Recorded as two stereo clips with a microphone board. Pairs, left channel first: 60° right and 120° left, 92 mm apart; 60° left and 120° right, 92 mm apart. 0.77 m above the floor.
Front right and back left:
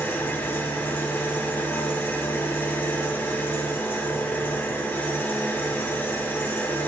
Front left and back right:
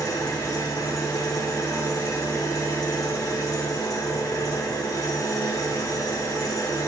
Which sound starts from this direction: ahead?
An engine running, at 0.0 s.